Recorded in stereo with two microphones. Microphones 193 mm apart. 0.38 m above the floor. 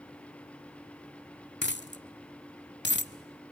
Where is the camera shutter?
I don't hear a camera shutter.